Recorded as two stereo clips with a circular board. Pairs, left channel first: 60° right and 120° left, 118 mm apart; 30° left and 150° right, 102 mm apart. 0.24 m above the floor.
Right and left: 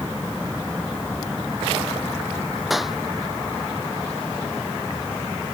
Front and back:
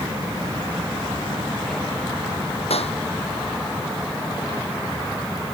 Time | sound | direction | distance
2.7 | a clap | 30° left | ?